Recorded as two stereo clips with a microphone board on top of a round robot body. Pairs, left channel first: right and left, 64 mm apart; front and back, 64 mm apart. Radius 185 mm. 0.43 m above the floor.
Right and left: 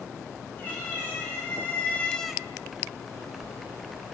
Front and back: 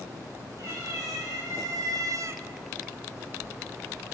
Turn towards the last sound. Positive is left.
turn(degrees=135)